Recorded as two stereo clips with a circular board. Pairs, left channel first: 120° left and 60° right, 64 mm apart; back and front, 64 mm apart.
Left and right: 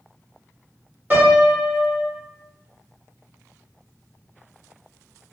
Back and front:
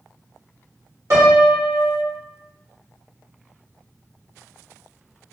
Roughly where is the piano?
Ahead.